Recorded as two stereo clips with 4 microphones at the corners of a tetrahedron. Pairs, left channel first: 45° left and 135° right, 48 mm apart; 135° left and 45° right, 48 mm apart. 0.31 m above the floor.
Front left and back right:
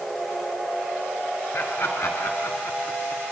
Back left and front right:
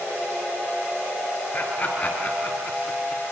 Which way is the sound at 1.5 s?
80° left.